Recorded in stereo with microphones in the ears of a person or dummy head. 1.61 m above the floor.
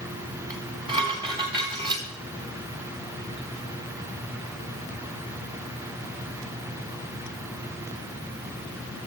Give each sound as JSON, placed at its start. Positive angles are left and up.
{"t": 0.5, "sound": "dishes clattering", "side_deg": -25, "distance_m": 1.9}